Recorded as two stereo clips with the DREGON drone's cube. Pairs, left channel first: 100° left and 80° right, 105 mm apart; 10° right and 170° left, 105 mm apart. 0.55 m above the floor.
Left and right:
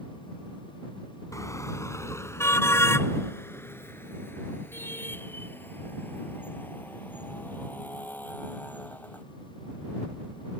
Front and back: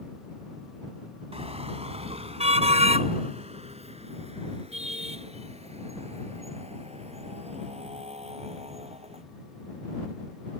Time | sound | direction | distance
1.3 | a car horn | 160° left | ?